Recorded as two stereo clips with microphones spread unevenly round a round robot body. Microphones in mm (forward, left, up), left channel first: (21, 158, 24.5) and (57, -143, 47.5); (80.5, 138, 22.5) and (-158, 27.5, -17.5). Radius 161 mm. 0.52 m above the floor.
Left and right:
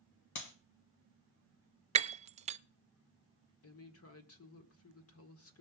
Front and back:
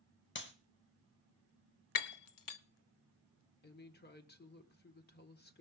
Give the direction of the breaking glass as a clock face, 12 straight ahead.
12 o'clock.